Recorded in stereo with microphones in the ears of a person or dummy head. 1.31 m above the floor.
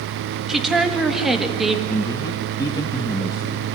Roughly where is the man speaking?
Left.